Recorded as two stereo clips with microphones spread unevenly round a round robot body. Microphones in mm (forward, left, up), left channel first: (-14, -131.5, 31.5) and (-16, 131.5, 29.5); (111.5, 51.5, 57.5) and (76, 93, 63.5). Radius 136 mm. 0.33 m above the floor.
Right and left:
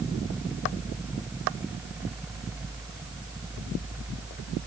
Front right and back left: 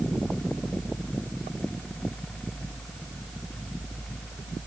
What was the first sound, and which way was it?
Only background noise.